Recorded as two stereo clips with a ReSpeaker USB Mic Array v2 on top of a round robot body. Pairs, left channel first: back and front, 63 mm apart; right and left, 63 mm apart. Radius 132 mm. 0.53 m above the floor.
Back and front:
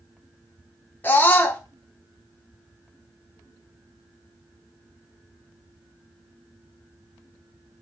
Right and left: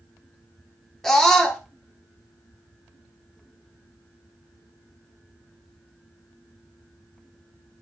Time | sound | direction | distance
1.0 | a scream | 170° right | 0.8 m